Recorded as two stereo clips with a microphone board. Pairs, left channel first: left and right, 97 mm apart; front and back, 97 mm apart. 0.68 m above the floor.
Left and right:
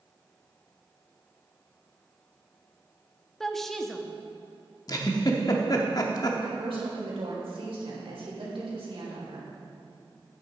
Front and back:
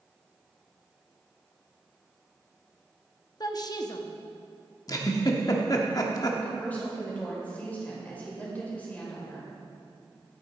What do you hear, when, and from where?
3.4 s a woman speaking: 5° left, 0.8 m
4.9 s a giggle: 45° left, 0.9 m
6.4 s a woman speaking: 75° right, 3 m